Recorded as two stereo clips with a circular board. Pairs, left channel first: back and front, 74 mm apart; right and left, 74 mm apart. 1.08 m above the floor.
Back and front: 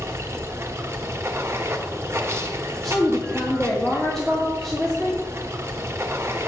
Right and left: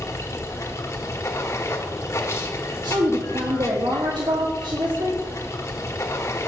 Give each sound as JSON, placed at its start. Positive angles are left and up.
{"t": 0.0, "sound": "running water", "azimuth_deg": -50, "distance_m": 1.2}
{"t": 2.8, "sound": "a woman speaking", "azimuth_deg": 95, "distance_m": 1.6}